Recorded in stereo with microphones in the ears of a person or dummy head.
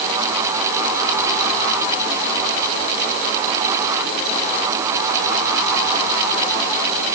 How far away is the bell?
No bell in this recording.